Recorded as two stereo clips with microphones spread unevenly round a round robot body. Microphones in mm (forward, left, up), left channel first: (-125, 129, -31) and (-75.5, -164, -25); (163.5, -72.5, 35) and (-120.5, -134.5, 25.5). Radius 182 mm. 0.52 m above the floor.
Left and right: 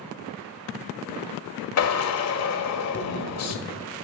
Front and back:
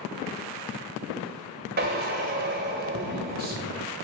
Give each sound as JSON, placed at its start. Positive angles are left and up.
{"t": 1.8, "sound": "a drill", "azimuth_deg": 130, "distance_m": 1.4}